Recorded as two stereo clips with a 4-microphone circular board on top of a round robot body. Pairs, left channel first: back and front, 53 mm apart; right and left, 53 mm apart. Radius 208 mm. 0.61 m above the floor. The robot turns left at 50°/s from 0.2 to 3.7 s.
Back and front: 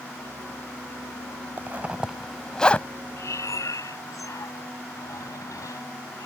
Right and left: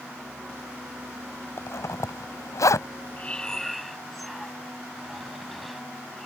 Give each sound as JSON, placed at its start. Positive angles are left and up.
{"t": 1.6, "sound": "a zipper", "azimuth_deg": -55}
{"t": 3.2, "sound": "breathing", "azimuth_deg": -150}